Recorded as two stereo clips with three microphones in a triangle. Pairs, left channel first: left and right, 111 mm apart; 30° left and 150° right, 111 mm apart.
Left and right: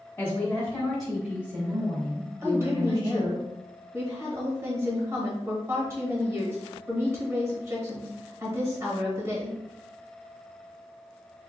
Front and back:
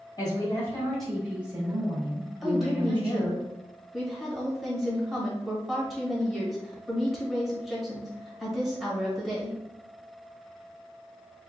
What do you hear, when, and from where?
0.2 s a woman speaking: 40° left, 1.5 m; by 3.4 s 135° right, 2.5 m
2.4 s a woman speaking: 65° right, 1.1 m